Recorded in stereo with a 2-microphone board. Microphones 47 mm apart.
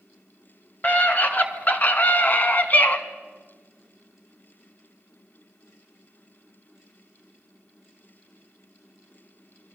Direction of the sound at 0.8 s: 35° left (ahead or behind).